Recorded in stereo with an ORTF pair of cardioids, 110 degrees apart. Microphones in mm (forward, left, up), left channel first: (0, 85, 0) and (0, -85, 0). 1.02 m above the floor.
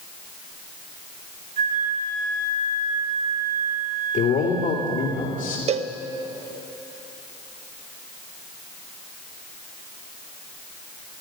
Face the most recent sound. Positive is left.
turn(degrees=-40)